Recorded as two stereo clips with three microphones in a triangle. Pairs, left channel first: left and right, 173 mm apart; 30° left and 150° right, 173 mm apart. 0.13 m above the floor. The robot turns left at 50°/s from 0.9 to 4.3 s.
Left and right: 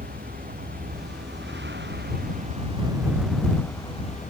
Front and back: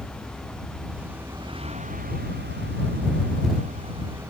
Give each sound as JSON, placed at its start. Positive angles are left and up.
{"t": 0.0, "sound": "a vehicle", "azimuth_deg": -55}